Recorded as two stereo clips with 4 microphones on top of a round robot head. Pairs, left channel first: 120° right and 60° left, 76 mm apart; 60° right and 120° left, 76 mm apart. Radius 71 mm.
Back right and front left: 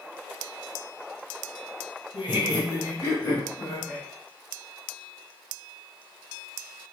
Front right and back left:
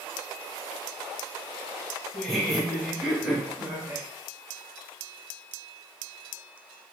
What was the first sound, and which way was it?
Laughter, 145° right.